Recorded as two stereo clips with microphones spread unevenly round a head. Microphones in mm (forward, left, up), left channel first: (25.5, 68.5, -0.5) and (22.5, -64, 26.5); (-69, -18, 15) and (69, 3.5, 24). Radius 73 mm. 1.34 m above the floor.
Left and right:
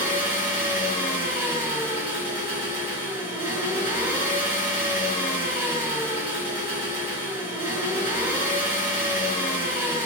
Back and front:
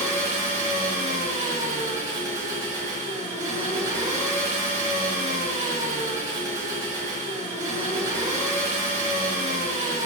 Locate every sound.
0.0 s an engine running: 25° right, 1.5 m